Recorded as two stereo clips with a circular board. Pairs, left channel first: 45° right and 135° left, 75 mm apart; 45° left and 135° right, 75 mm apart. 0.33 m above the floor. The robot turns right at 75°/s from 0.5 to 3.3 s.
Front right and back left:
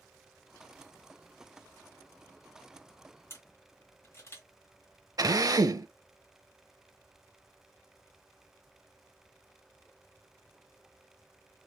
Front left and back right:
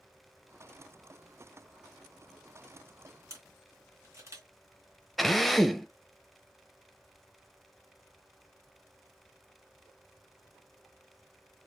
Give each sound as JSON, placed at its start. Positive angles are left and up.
{"t": 3.3, "sound": "a camera shutter", "azimuth_deg": -95, "distance_m": 1.7}
{"t": 5.2, "sound": "a drill", "azimuth_deg": 135, "distance_m": 0.5}